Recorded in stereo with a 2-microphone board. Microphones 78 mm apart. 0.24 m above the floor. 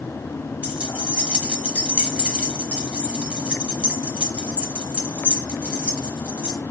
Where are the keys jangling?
15° right (ahead or behind), 0.8 m.